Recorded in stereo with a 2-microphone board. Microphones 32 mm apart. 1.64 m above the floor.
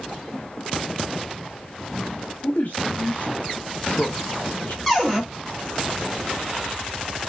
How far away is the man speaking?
About 0.8 m.